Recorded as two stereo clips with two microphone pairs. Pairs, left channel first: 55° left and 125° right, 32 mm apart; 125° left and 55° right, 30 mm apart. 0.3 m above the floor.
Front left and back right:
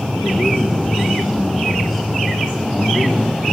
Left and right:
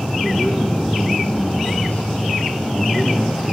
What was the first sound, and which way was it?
A man speaking, 165° left.